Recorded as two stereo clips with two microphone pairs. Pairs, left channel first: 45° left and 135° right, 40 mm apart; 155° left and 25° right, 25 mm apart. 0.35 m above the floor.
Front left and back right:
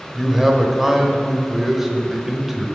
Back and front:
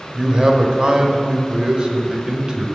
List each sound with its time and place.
0.1 s a man speaking: 60° right, 1.1 m